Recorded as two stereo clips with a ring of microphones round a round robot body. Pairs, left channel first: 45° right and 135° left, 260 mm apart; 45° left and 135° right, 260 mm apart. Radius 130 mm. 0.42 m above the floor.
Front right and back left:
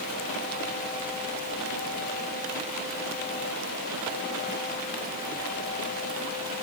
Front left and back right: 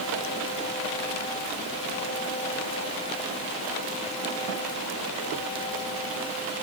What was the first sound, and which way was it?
Only background noise.